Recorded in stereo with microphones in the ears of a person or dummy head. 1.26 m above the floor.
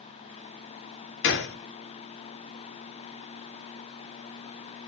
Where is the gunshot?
70° left (ahead or behind), 0.5 m.